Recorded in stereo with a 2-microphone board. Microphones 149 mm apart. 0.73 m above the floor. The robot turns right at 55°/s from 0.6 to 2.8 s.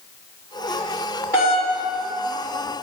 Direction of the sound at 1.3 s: 25° left (ahead or behind).